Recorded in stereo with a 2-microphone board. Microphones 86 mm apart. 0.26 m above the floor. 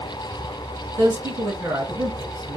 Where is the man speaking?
40° right (ahead or behind), 1.2 m.